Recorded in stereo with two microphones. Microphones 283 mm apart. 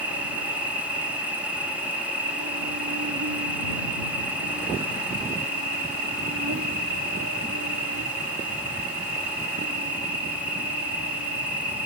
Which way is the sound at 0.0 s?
85° right.